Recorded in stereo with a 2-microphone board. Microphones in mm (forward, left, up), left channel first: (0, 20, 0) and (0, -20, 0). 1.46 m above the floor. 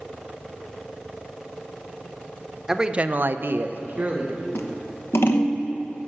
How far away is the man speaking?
About 0.8 m.